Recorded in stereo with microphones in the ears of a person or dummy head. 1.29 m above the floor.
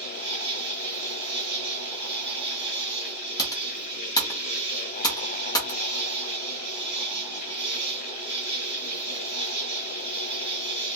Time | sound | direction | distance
0.0 | an insect | 25° right (ahead or behind) | 1.1 m
3.4 | typing on a keyboard | 20° left (ahead or behind) | 0.6 m